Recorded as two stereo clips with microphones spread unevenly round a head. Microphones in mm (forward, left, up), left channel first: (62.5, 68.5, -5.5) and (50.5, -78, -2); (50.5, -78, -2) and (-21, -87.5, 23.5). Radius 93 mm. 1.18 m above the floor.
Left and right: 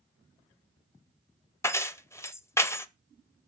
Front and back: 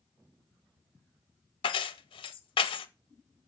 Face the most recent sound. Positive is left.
turn(degrees=10)